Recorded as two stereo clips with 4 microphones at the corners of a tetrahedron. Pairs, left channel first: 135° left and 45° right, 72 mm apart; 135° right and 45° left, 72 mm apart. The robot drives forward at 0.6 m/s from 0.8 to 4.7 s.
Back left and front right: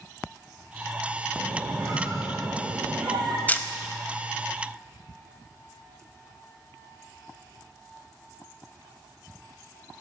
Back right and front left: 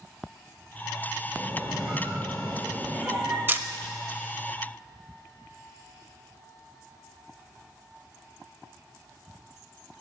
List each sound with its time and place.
1.4 s a squeak: 25° right, 3.5 m; by 3.4 s 35° right, 2.5 m
3.5 s a camera shutter: 85° left, 0.6 m; by 3.7 s 105° left, 0.6 m